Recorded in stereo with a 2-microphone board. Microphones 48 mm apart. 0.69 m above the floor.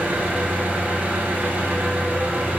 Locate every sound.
0.0 s an engine running: 35° right (ahead or behind), 1.2 m